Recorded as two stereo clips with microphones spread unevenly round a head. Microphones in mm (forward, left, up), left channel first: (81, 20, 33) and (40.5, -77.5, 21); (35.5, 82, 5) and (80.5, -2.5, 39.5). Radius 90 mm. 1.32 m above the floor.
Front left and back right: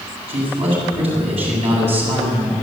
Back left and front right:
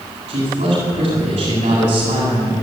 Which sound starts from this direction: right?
A man speaking, at 0.3 s.